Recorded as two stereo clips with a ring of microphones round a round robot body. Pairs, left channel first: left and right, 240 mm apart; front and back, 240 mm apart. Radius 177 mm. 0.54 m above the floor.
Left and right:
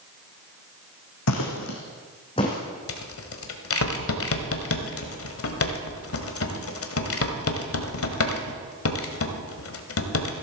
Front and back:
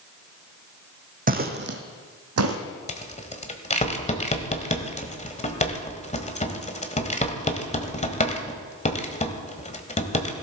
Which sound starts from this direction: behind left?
Footsteps, at 1.3 s.